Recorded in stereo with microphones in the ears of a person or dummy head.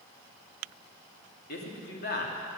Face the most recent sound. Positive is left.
turn(degrees=50)  # may be behind; listen again after turning